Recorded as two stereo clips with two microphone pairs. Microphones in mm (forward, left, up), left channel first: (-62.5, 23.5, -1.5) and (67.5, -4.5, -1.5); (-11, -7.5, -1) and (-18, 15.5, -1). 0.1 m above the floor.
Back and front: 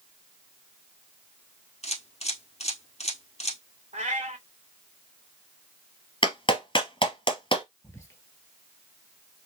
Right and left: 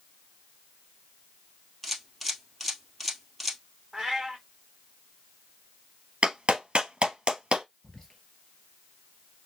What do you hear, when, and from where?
1.8 s a camera shutter: 165° right, 1.5 m
3.9 s a cat meowing: 20° left, 1.6 m
6.2 s a clap: 130° left, 1.4 m
7.8 s whispering: 135° right, 1.8 m